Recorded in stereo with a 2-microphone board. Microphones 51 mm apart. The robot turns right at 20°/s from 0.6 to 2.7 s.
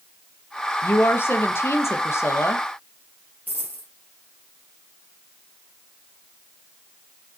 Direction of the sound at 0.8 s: 55° left.